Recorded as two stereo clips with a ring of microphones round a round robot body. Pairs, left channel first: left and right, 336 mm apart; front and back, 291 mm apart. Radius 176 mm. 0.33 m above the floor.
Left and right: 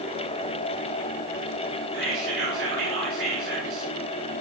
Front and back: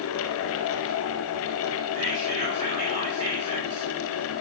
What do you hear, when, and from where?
1.9 s whispering: 70° right, 2.0 m